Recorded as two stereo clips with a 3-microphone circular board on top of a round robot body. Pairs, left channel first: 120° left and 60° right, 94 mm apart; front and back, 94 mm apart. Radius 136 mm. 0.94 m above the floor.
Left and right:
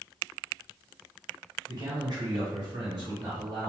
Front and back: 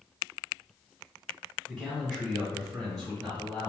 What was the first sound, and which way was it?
A man speaking, 85° right.